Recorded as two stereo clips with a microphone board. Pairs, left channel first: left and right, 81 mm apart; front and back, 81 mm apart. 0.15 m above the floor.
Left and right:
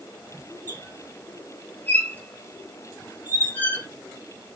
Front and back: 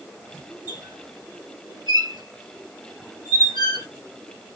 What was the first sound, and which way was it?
A squeak, 155° left.